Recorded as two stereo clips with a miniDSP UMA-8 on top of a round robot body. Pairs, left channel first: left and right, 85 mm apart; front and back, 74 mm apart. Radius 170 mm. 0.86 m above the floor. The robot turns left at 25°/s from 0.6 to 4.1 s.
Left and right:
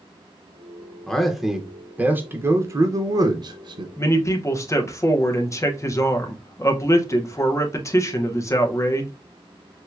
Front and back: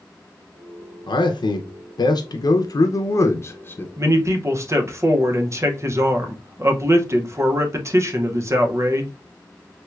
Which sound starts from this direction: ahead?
A man speaking, at 1.1 s.